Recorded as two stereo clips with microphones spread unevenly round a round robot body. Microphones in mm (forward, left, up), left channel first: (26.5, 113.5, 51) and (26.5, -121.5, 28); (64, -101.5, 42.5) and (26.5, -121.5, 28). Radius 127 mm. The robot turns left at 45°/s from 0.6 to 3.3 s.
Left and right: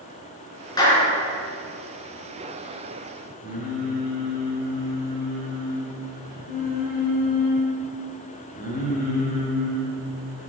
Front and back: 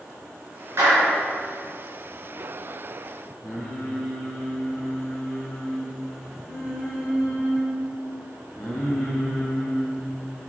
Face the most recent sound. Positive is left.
turn(degrees=35)